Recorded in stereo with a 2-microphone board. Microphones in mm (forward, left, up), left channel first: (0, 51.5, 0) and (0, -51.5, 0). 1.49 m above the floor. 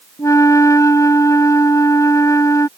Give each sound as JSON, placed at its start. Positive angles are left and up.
{"t": 0.2, "sound": "a flute", "side_deg": 30}